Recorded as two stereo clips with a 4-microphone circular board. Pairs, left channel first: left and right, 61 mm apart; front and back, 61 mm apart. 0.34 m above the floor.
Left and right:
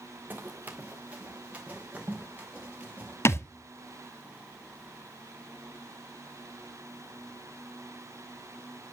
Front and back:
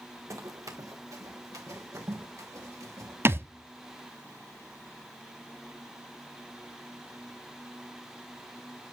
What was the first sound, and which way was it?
Running footsteps, 150° right.